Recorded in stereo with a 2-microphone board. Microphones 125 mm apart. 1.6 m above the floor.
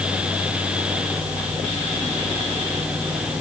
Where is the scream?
I don't hear a scream.